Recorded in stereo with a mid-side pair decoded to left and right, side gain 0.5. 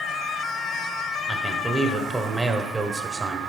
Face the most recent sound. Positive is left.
turn(degrees=-25)